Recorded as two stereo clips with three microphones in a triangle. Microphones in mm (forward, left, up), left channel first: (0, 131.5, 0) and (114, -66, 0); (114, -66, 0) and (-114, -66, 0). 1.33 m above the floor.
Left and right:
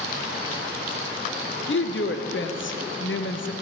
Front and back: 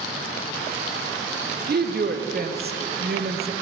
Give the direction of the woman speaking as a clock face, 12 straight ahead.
7 o'clock.